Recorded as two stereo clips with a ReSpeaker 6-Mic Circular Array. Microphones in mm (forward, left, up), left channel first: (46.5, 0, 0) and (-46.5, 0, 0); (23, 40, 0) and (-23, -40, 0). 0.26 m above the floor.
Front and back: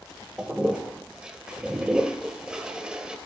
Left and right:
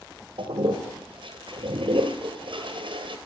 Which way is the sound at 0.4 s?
100° right.